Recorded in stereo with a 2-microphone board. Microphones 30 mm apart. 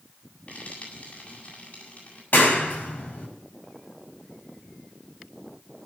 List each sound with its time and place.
0.5 s frying: 60° left (ahead or behind), 8 m
2.3 s a clap: 85° left, 4.5 m